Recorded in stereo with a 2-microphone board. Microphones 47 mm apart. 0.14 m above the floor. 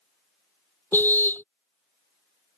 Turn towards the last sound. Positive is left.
turn(degrees=50)  # may be behind; listen again after turning